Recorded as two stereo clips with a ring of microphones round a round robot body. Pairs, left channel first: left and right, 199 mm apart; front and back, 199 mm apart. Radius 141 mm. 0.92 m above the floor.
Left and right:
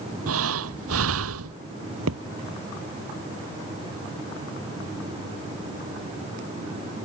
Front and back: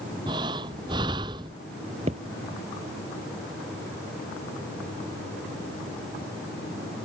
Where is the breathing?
105° right.